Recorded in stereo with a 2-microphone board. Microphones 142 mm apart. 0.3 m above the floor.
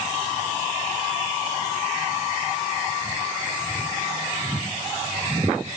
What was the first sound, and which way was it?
Only background noise.